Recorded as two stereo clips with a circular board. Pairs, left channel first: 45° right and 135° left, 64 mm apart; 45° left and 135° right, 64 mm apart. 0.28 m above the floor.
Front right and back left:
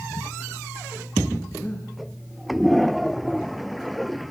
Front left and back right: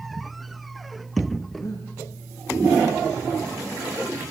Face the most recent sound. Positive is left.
turn(degrees=15)